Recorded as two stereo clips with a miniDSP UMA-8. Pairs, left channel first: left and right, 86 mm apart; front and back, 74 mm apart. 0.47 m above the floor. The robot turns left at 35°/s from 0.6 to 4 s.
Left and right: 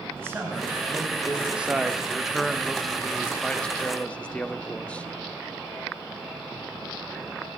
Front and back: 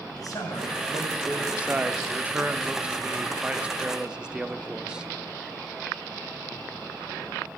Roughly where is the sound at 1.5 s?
Behind right.